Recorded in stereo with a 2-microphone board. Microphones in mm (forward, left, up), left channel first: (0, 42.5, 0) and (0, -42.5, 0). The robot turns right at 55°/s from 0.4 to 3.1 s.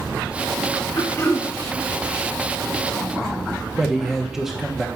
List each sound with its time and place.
1.0 s throat clearing: 45° left (ahead or behind), 0.9 m; by 1.5 s 15° left (ahead or behind), 0.9 m
3.8 s a man speaking: 5° right (ahead or behind), 1.0 m